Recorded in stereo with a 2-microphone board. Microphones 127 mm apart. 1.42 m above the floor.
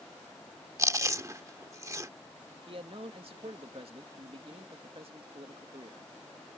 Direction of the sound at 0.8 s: 25° right (ahead or behind).